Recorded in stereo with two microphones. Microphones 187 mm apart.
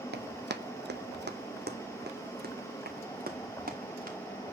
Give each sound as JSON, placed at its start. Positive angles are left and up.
{"t": 0.1, "sound": "running footsteps", "side_deg": -75, "distance_m": 1.1}